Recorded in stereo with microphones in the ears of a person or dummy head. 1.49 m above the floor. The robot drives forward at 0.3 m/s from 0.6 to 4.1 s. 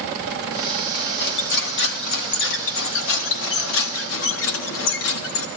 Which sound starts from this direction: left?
Cutlery clinking, at 0.9 s.